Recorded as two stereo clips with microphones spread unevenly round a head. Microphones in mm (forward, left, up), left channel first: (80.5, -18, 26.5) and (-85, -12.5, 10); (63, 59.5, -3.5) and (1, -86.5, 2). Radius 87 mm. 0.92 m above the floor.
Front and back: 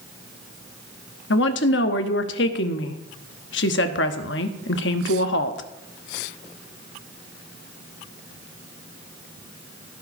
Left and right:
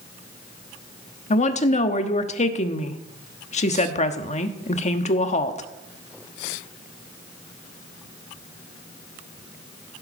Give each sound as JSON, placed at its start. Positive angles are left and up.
{"t": 1.3, "sound": "a woman speaking", "azimuth_deg": 20, "distance_m": 1.3}